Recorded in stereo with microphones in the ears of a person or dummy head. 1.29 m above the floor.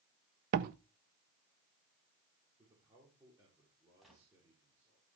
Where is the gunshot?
Centre (ahead or behind), 3.5 m.